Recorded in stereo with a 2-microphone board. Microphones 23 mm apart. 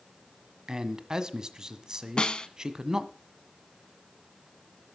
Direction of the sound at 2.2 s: 45° left (ahead or behind).